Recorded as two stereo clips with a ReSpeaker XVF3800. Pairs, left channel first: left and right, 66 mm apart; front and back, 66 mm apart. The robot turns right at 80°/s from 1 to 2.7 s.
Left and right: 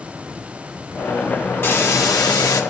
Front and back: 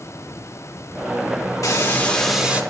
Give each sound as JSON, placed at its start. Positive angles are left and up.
{"t": 1.6, "sound": "a hiss", "azimuth_deg": 35, "distance_m": 2.0}